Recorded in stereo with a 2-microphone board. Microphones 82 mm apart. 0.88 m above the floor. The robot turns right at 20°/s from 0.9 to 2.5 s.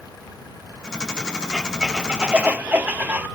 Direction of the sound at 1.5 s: Centre (ahead or behind).